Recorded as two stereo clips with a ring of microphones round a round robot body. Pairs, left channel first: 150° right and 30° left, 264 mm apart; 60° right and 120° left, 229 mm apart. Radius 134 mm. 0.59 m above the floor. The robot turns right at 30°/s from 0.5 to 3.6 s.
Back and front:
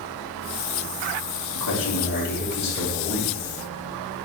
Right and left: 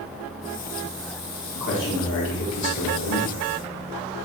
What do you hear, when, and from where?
1.6 s a man speaking: 115° right, 3 m; by 3.4 s 60° right, 3 m